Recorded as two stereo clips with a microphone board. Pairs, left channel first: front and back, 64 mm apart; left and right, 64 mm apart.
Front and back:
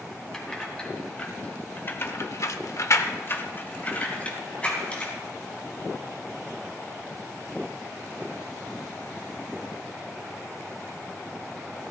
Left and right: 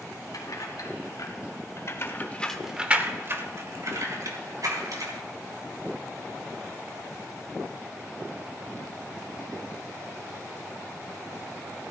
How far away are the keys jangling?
About 3 m.